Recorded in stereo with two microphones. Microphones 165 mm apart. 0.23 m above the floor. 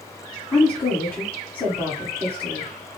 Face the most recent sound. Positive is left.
turn(degrees=10)  # may be behind; listen again after turning